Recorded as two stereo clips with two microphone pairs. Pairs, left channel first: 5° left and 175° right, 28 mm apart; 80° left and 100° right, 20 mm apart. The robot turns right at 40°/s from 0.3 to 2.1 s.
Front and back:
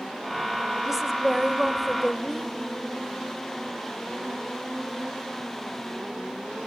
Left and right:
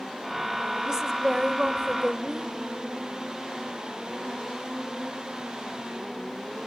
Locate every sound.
0.8 s a woman speaking: 120° right, 0.9 m; by 2.5 s 70° right, 0.9 m